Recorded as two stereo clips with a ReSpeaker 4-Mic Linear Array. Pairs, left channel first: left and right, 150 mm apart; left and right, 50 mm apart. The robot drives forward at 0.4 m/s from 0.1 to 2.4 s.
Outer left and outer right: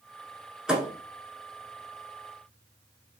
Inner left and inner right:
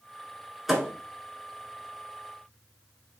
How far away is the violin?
I don't hear a violin.